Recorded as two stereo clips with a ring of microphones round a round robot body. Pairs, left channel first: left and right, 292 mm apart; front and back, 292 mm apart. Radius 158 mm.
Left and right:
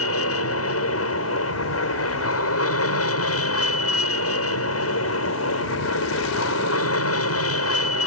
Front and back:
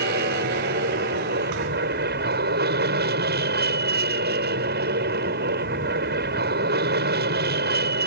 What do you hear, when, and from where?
0.0 s an aircraft: 125° left